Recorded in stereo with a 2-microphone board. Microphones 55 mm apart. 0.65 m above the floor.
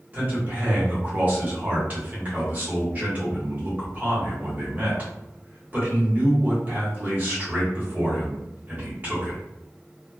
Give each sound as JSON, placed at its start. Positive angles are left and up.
{"t": 0.1, "sound": "a man speaking", "side_deg": -30, "distance_m": 1.2}